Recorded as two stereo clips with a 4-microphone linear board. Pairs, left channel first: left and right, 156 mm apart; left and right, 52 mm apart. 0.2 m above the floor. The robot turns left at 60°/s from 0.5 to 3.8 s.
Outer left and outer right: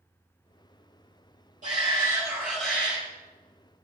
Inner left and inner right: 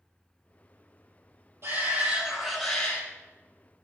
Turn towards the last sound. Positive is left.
turn(degrees=105)